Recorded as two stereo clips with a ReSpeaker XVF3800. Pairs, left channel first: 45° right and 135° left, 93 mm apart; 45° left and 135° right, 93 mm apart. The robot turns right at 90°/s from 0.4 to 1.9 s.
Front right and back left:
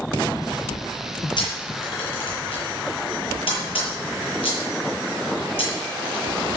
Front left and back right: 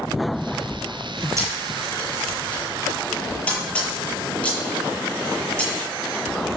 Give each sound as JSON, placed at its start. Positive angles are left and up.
{"t": 1.4, "sound": "a camera shutter", "azimuth_deg": -80, "distance_m": 8.0}